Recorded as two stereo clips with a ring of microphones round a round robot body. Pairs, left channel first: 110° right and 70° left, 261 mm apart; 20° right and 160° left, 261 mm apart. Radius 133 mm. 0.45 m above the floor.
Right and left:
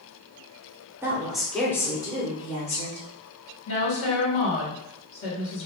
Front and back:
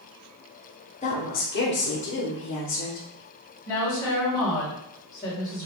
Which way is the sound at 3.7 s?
95° right.